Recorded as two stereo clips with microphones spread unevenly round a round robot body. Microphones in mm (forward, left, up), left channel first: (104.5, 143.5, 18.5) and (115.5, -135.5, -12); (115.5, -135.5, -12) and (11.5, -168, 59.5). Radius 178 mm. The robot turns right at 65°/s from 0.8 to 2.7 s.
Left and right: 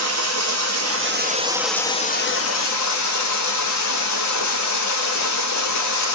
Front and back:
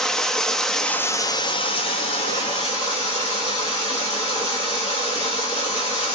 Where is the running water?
55° right, 0.8 m; by 6.2 s 65° left, 0.8 m.